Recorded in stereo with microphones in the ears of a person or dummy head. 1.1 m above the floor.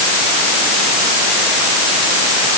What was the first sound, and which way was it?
Only background noise.